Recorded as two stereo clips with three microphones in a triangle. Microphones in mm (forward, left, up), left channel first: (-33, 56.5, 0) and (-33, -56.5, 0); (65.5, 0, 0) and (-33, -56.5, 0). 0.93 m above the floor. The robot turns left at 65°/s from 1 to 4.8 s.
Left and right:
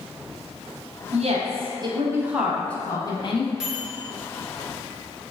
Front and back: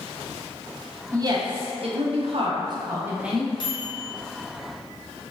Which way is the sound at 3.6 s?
5° right.